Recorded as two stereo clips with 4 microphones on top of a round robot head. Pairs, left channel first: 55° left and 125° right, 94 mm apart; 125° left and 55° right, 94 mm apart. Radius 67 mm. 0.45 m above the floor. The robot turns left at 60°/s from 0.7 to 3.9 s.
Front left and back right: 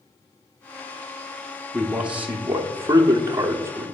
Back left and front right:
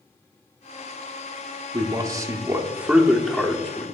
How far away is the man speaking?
About 0.8 m.